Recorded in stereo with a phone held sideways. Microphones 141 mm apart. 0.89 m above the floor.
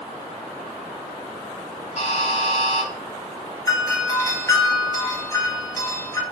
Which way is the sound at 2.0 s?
50° left (ahead or behind).